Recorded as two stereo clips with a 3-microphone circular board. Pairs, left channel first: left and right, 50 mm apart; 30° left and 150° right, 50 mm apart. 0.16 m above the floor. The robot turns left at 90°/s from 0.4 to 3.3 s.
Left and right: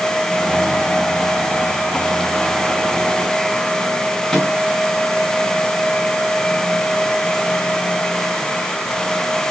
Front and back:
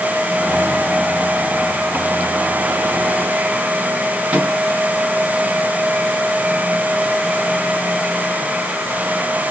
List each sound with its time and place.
4.3 s a microwave: 170° left, 1.2 m